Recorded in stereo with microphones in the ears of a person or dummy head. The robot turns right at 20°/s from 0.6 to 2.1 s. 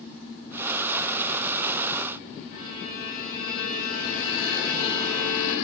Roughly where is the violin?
Left.